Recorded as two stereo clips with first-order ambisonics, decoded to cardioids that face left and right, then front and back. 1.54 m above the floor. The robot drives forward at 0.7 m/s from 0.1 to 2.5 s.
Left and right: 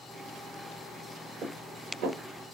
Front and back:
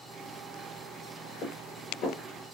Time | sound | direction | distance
1.4 | dishes clattering | 35° right | 3 m